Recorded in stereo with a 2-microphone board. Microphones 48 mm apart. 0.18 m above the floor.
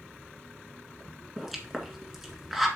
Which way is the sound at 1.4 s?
Centre (ahead or behind).